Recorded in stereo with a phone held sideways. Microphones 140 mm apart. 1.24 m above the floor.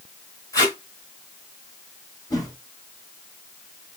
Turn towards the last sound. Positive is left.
turn(degrees=30)  # may be behind; listen again after turning